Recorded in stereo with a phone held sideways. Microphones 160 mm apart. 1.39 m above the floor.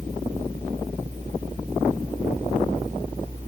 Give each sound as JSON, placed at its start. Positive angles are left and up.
{"t": 0.0, "sound": "a fan", "side_deg": -50}